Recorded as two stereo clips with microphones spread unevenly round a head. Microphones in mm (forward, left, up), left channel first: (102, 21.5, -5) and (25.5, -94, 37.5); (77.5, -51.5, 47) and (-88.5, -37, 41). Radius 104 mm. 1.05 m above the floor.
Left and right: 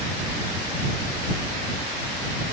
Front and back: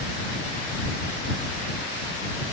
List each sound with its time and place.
Only background noise.